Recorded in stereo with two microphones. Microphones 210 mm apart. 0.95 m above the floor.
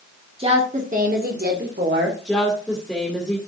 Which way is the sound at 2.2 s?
Centre (ahead or behind).